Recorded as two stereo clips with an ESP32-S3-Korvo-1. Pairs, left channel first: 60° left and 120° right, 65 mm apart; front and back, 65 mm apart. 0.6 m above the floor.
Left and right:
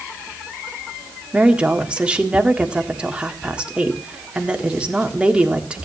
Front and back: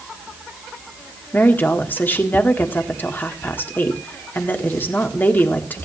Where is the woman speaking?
50° right, 1.6 m.